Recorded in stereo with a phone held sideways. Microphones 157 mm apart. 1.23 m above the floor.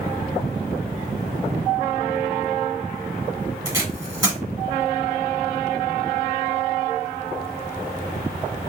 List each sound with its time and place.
3.6 s tape being pulled: 20° right (ahead or behind), 1.7 m